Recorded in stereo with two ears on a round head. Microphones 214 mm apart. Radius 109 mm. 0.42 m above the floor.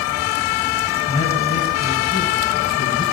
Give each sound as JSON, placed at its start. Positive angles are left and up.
{"t": 1.1, "sound": "a man speaking", "side_deg": 25, "distance_m": 2.5}